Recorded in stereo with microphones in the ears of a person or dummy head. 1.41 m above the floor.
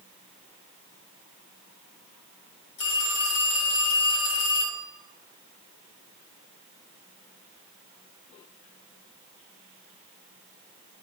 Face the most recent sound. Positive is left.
turn(degrees=65)  # may be behind; listen again after turning